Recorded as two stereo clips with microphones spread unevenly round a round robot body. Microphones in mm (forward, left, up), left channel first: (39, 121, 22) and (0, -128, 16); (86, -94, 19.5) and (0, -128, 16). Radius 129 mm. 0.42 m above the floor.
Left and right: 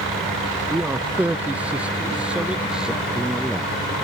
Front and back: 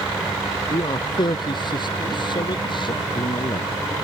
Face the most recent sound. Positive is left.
turn(degrees=-10)